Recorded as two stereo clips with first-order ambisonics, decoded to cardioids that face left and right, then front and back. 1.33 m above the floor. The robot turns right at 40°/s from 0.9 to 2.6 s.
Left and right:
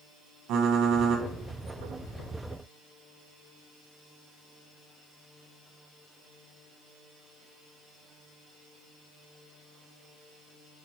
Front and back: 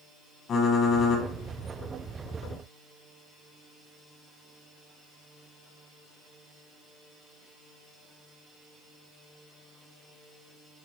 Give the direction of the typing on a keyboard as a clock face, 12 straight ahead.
2 o'clock.